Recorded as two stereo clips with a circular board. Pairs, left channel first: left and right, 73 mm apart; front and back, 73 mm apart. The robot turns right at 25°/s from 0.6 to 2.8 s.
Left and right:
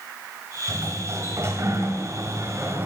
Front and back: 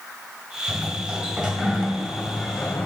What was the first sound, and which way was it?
A sliding door, 125° right.